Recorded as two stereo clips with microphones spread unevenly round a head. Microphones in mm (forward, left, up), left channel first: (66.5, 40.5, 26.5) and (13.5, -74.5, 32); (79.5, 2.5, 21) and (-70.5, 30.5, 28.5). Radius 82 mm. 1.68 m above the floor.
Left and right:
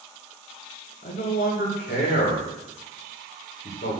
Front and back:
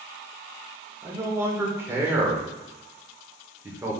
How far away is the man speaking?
About 2.5 m.